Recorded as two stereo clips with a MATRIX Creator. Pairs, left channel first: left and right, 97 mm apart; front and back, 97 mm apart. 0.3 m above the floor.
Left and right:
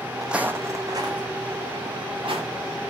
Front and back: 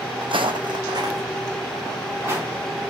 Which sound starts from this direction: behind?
Footsteps, at 0.2 s.